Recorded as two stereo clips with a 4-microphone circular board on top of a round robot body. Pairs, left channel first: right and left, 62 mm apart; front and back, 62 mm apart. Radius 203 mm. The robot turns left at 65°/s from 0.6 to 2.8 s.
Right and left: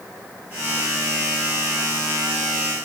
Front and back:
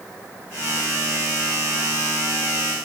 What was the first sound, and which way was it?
Only background noise.